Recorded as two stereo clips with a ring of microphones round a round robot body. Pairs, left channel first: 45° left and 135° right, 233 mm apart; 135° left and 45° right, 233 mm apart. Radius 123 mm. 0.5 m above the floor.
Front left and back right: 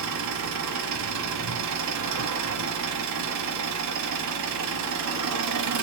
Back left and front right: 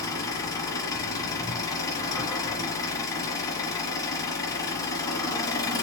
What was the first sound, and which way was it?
An engine running, 150° right.